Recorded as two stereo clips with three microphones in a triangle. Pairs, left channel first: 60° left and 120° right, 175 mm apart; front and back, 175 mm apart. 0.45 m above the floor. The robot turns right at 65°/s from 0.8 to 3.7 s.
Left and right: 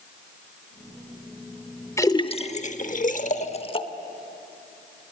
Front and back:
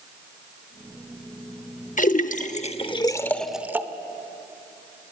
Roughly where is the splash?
Ahead.